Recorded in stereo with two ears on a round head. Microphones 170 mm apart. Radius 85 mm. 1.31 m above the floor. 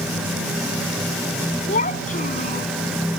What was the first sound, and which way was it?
A child speaking, 40° left (ahead or behind).